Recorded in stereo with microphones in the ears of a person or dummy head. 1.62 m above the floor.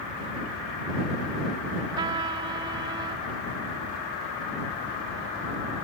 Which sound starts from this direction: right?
A trumpet, at 2.0 s.